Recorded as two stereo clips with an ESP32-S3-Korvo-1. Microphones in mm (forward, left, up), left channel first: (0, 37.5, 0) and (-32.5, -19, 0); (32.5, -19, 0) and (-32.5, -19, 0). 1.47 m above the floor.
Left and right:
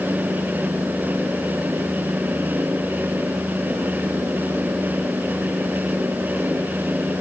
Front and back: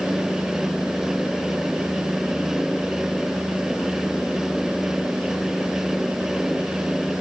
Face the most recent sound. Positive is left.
No sound to turn to.